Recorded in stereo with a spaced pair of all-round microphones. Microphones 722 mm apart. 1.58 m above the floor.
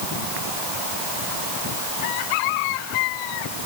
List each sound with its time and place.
Only background noise.